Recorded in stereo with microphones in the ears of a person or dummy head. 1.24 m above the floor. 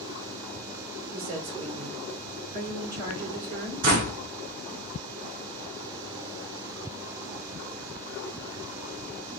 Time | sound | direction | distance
1.1 | a woman speaking | 45° right (ahead or behind) | 3 m
3.8 | a door slam | 55° right (ahead or behind) | 1.9 m